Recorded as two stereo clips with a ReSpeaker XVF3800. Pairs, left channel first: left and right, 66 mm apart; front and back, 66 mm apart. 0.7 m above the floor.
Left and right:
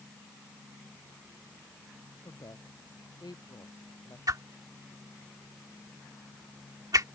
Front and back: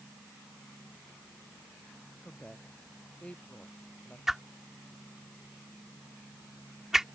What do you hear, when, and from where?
2.2 s a woman speaking: 75° left; by 4.2 s 70° left
4.3 s a whoosh: 95° right